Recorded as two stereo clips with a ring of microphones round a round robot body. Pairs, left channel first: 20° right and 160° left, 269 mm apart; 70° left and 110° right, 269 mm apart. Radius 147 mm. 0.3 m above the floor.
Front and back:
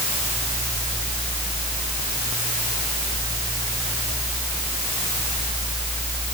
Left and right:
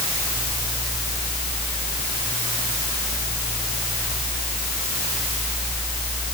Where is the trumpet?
No trumpet in this recording.